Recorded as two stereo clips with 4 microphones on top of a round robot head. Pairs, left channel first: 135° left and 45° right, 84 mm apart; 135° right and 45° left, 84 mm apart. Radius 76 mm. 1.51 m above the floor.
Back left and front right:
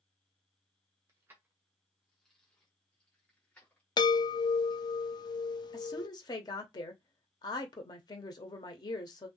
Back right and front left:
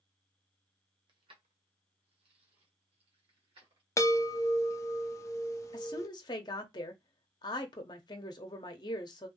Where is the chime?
170° left, 0.6 m.